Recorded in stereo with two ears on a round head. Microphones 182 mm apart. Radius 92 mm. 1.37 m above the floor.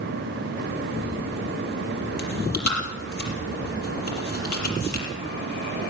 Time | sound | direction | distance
2.2 | chewing | 50° left (ahead or behind) | 6 m